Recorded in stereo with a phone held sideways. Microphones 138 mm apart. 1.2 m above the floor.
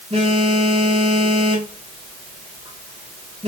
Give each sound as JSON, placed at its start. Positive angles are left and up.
{"t": 0.1, "sound": "a phone buzzing", "side_deg": -50, "distance_m": 4.0}